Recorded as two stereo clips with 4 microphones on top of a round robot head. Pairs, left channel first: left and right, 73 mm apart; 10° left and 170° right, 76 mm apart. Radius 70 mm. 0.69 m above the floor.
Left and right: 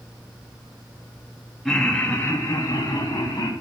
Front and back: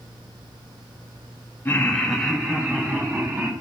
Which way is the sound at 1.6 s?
5° left.